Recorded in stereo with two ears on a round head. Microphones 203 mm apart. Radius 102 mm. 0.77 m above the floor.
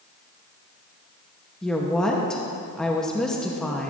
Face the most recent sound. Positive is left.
turn(degrees=5)  # may be behind; listen again after turning